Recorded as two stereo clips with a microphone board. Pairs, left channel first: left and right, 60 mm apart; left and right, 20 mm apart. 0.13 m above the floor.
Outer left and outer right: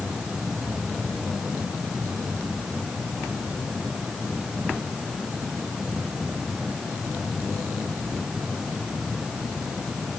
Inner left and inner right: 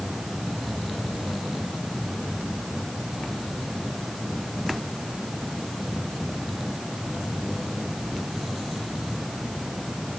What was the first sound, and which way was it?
Only background noise.